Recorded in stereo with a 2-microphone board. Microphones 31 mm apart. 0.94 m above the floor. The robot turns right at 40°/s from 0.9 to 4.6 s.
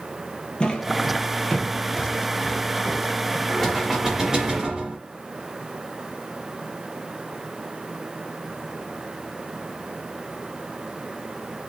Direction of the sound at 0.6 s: 25° left (ahead or behind).